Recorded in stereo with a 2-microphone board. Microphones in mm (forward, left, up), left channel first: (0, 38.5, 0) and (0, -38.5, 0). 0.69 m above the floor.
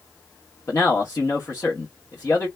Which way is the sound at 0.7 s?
40° left (ahead or behind).